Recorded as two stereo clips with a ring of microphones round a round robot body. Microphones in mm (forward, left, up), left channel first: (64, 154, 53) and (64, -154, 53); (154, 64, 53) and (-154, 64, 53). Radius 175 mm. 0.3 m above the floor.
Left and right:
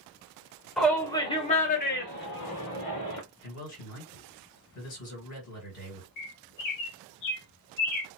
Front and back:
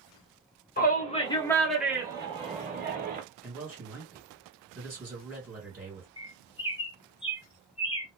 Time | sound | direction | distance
0.8 | a shout | straight ahead | 0.9 m
3.4 | a man speaking | 85° left | 1.9 m
6.2 | a bird | 75° left | 0.9 m